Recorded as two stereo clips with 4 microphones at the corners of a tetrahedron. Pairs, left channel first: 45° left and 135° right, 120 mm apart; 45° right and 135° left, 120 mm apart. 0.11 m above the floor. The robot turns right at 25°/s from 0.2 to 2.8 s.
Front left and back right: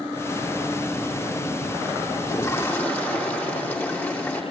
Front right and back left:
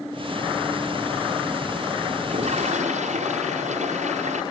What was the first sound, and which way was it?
A toilet flushing, 105° left.